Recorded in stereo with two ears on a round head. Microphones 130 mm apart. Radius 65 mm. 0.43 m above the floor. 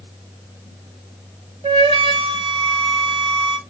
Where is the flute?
35° right (ahead or behind), 0.6 m.